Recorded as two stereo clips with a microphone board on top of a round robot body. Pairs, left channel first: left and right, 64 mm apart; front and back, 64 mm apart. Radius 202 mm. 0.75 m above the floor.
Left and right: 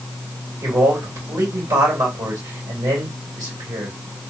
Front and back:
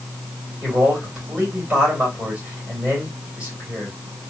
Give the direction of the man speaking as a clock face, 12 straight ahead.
4 o'clock.